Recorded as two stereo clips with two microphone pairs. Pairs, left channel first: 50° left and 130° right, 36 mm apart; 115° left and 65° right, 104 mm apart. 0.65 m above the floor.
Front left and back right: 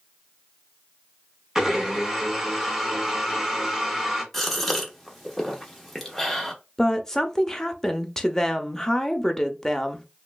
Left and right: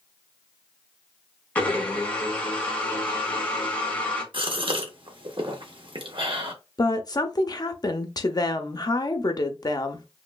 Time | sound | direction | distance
1.6 | a blender | 170° left | 1.2 m
4.3 | a gasp | 35° right | 0.8 m
6.8 | a woman speaking | 120° left | 0.6 m